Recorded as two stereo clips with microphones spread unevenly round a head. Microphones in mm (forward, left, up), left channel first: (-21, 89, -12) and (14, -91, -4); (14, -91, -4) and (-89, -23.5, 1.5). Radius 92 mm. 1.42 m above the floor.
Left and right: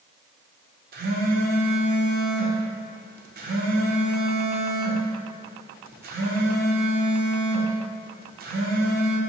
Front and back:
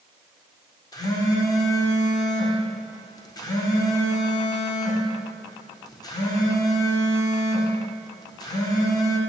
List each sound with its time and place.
0.9 s a phone buzzing: 90° right, 0.5 m